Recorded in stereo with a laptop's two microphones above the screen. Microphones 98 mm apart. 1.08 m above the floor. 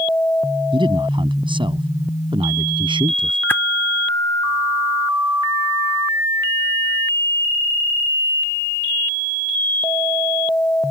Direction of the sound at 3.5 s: 20° left (ahead or behind).